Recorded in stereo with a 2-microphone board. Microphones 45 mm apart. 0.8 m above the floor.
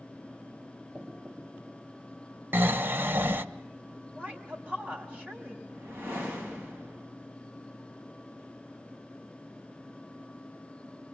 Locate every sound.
0.9 s knocking: 40° right (ahead or behind), 3.5 m
2.5 s snoring: 55° right (ahead or behind), 0.9 m
4.2 s a woman speaking: 40° right (ahead or behind), 5.5 m
5.7 s a whoosh: 65° right (ahead or behind), 10 m